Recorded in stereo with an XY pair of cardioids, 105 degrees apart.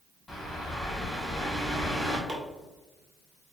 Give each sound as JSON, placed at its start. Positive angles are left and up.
{"t": 0.3, "sound": "a bird", "azimuth_deg": 0, "distance_m": 2.0}
{"t": 2.3, "sound": "chopping", "azimuth_deg": -30, "distance_m": 1.6}